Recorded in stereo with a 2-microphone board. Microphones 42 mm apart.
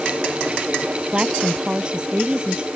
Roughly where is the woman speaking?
Right.